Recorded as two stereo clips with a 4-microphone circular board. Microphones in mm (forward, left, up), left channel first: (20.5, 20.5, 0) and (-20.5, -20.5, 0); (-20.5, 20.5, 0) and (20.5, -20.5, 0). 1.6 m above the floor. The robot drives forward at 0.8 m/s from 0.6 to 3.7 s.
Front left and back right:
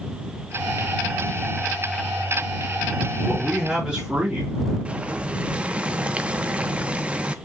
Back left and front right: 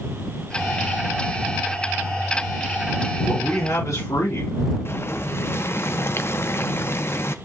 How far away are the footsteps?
No footsteps in this recording.